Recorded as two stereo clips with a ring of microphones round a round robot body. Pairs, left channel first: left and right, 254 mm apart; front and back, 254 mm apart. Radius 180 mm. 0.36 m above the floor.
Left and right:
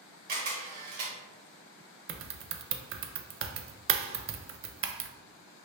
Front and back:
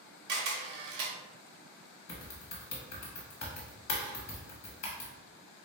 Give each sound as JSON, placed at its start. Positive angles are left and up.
{"t": 0.3, "sound": "a camera shutter", "azimuth_deg": -140, "distance_m": 0.6}
{"t": 2.1, "sound": "typing on a keyboard", "azimuth_deg": -45, "distance_m": 0.5}